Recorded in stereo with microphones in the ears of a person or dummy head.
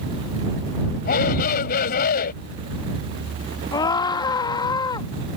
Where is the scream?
25° left (ahead or behind).